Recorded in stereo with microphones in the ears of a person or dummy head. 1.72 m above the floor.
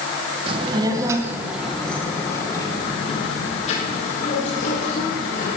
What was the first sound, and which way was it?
A child speaking, 30° right (ahead or behind).